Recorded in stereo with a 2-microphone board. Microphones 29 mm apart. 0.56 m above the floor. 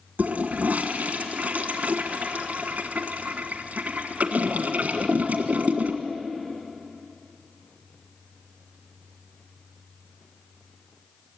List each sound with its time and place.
0.2 s a toilet flushing: 65° right (ahead or behind), 1.6 m